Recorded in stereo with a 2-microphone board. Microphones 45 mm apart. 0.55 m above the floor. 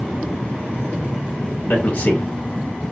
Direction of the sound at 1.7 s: 40° left (ahead or behind).